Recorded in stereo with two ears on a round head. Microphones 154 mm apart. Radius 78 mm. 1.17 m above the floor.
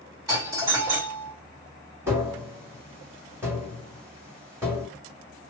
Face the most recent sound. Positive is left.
turn(degrees=-10)  # may be behind; listen again after turning